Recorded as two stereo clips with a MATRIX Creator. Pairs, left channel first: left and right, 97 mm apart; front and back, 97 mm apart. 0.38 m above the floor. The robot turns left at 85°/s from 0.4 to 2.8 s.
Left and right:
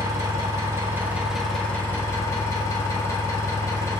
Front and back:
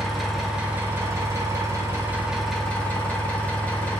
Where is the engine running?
90° right, 0.9 m; by 4.0 s 65° left, 0.9 m.